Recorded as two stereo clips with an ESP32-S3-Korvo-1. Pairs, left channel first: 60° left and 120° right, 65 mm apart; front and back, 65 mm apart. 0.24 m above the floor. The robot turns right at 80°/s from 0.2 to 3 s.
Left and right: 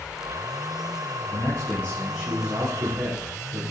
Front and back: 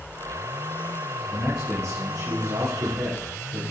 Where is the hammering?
I don't hear hammering.